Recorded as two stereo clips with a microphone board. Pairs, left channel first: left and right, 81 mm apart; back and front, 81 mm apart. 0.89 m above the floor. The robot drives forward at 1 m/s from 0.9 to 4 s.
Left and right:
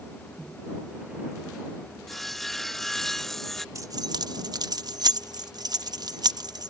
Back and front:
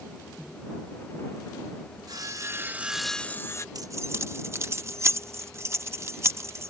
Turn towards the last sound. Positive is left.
turn(degrees=-55)